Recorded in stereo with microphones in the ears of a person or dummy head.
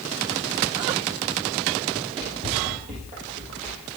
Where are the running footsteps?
35° right (ahead or behind), 4.5 m; by 3.8 s 40° right (ahead or behind), 3.5 m.